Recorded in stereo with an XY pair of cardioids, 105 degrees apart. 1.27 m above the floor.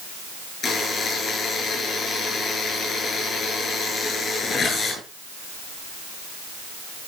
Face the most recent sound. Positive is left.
turn(degrees=40)